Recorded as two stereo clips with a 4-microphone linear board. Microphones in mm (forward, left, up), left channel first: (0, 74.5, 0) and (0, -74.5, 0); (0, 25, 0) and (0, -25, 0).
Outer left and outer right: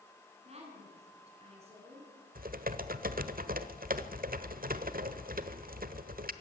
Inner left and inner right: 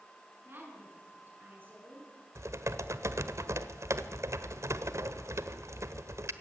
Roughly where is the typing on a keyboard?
Right.